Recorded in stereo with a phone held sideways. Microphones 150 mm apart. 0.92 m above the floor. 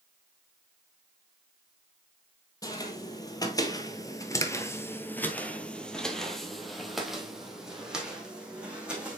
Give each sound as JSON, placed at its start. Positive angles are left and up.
{"t": 2.6, "sound": "footsteps", "side_deg": 25, "distance_m": 1.4}